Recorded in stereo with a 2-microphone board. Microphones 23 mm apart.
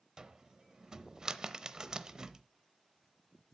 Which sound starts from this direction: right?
A cupboard door, at 0.2 s.